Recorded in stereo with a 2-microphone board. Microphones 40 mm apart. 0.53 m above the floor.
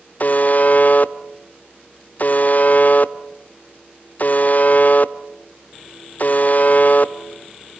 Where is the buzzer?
45° left (ahead or behind), 0.7 m.